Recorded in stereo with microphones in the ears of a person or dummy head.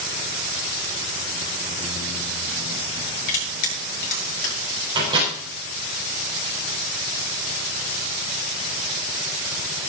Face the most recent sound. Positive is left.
turn(degrees=-25)  # may be behind; listen again after turning